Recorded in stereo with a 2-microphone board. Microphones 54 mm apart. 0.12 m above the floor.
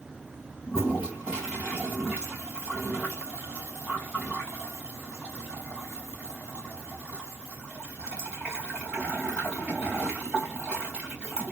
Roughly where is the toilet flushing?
Centre.